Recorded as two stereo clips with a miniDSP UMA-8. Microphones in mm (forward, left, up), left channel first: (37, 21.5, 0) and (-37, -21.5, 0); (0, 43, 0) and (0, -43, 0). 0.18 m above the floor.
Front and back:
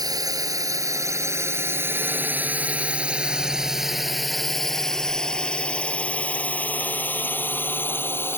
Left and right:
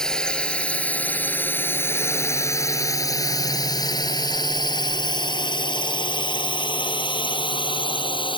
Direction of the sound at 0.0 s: 170° left.